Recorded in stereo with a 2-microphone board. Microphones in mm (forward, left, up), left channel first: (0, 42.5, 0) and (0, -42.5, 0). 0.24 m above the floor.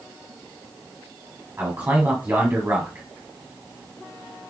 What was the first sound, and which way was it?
A man speaking, 25° right (ahead or behind).